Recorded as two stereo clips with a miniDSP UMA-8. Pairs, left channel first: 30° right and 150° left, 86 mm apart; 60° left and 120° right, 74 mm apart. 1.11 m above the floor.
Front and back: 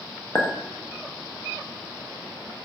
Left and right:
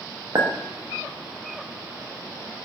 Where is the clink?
90° right, 0.7 m.